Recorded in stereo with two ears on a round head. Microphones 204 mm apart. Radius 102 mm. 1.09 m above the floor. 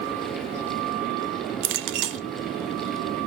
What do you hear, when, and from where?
1.6 s a clink: 55° right (ahead or behind), 0.7 m